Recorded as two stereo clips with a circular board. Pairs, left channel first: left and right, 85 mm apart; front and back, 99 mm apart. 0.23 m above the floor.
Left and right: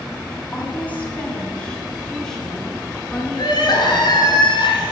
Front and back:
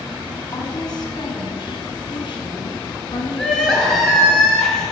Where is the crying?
80° left, 2.5 m.